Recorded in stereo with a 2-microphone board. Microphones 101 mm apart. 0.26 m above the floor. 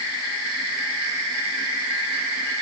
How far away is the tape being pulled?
No tape being pulled in this recording.